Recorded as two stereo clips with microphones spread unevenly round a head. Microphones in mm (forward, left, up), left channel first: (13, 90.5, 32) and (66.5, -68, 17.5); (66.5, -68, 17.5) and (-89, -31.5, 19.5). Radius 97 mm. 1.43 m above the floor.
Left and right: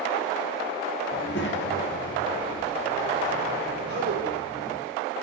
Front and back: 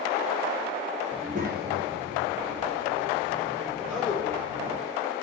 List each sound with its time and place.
1.1 s a child speaking: 105° left, 0.9 m; by 4.8 s 150° left, 4.5 m
3.8 s a man speaking: 105° right, 5.5 m